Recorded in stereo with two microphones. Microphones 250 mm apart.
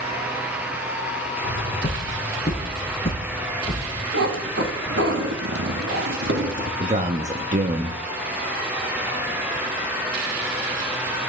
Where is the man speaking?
30° right (ahead or behind), 0.8 m.